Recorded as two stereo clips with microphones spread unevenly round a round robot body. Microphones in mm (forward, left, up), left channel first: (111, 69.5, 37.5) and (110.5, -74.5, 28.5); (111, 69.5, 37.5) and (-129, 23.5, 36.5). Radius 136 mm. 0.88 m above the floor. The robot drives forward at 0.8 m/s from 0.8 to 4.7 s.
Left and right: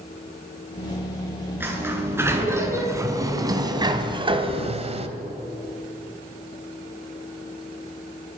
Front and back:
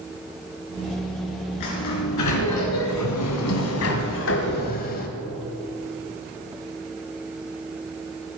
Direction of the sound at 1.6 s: 15° right.